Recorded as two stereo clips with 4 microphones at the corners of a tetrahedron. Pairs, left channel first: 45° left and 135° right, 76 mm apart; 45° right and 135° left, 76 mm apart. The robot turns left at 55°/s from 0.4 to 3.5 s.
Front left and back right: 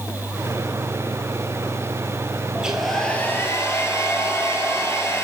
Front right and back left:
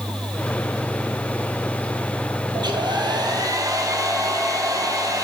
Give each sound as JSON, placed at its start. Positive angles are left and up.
{"t": 2.5, "sound": "a hair dryer", "azimuth_deg": 150, "distance_m": 0.9}